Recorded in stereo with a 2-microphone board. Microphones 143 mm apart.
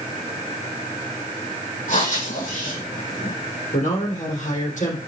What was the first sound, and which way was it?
Breathing, 65° left (ahead or behind).